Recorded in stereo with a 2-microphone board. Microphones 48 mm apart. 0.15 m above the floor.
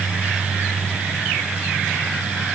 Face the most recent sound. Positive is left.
No sound to turn to.